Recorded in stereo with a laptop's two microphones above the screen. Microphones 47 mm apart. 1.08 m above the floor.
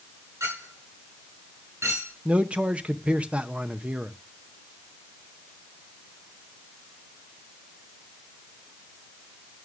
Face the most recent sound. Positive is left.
turn(degrees=-25)  # may be behind; listen again after turning